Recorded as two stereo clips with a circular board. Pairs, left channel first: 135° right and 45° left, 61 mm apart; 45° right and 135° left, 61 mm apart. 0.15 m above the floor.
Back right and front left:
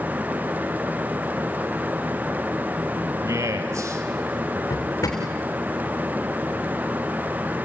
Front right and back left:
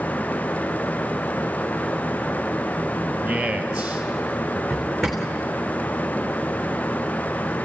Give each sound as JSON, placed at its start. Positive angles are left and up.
{"t": 3.2, "sound": "a man speaking", "azimuth_deg": 60, "distance_m": 2.5}
{"t": 4.7, "sound": "a drawer", "azimuth_deg": -135, "distance_m": 3.5}